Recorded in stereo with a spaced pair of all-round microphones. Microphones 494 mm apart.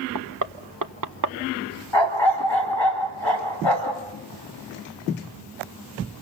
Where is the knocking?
40° right (ahead or behind), 0.8 m.